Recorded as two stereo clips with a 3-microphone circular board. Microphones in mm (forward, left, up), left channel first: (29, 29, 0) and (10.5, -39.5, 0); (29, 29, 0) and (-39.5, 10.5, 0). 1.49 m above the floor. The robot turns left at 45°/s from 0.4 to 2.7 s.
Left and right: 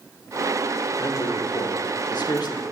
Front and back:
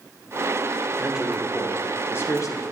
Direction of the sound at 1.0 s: 125° left.